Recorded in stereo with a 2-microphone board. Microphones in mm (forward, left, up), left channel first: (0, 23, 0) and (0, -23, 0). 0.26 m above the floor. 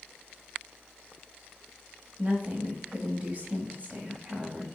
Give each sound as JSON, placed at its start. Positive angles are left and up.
{"t": 2.2, "sound": "a woman speaking", "side_deg": -35, "distance_m": 1.7}